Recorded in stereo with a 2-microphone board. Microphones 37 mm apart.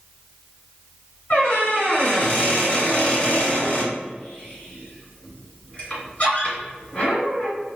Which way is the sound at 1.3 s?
25° left (ahead or behind).